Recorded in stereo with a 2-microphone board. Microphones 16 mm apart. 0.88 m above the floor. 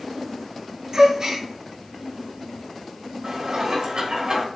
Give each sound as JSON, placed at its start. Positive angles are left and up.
{"t": 0.9, "sound": "a gasp", "side_deg": -45, "distance_m": 1.6}
{"t": 3.2, "sound": "dishes clattering", "side_deg": -60, "distance_m": 1.7}